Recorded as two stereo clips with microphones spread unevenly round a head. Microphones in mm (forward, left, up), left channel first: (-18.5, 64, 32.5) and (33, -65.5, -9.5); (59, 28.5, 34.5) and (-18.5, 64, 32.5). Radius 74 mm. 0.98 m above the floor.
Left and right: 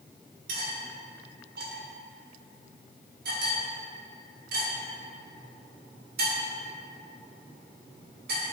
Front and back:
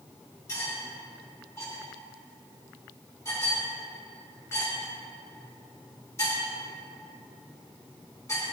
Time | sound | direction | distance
0.5 | cutlery clinking | 95° right | 1.6 m